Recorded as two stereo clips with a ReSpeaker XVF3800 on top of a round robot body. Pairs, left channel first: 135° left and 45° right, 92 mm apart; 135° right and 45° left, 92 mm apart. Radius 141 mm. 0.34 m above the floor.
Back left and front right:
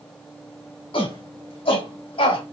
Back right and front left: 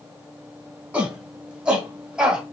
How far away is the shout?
About 3.5 m.